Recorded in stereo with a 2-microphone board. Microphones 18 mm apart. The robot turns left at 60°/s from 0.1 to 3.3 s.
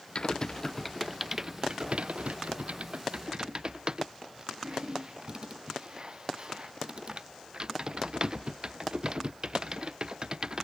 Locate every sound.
0.1 s typing on a keyboard: 50° left (ahead or behind); by 10.7 s 40° right (ahead or behind)